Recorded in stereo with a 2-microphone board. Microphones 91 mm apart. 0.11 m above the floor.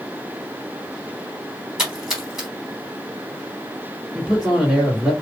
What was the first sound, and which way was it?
A splash, 5° right (ahead or behind).